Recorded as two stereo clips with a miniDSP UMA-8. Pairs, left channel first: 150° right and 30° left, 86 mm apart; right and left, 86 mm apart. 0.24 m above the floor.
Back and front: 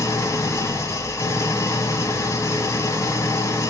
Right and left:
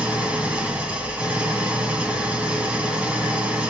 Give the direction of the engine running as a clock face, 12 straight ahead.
7 o'clock.